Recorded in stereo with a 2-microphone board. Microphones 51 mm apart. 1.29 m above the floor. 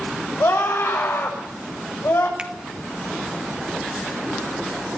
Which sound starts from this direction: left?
A scream, at 0.4 s.